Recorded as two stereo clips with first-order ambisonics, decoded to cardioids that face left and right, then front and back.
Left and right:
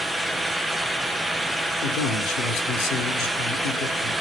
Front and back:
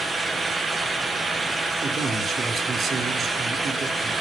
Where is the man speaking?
115° left, 3 m.